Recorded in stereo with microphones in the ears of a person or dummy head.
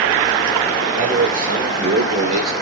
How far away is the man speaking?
About 5 m.